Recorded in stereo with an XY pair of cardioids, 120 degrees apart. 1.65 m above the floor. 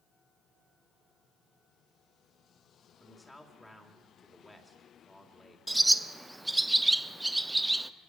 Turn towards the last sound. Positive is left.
turn(degrees=-10)